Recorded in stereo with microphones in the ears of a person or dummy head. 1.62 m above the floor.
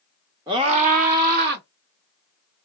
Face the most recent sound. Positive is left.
turn(degrees=-50)  # may be behind; listen again after turning